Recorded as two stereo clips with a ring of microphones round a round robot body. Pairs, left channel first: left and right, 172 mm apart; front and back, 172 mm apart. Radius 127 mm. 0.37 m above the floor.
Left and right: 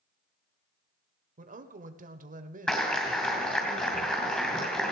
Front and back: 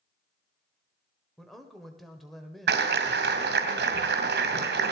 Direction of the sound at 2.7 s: 175° left.